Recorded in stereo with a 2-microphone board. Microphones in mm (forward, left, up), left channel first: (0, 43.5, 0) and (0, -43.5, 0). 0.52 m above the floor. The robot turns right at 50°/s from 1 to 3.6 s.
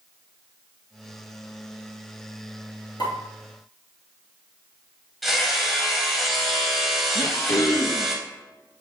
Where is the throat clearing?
45° left (ahead or behind), 1.1 m.